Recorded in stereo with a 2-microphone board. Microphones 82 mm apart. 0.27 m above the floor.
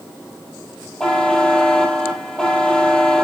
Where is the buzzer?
10° left (ahead or behind), 2.5 m.